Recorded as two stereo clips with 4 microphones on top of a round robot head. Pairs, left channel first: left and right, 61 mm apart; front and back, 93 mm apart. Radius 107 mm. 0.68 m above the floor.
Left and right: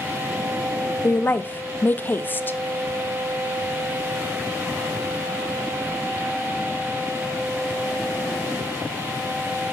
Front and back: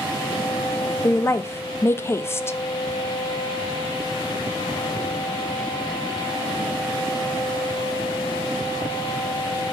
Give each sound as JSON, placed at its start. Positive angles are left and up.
{"t": 1.0, "sound": "a woman speaking", "azimuth_deg": 50, "distance_m": 0.6}